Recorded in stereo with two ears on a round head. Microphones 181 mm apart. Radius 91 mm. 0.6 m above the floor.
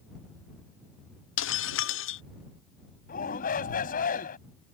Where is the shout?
45° left (ahead or behind).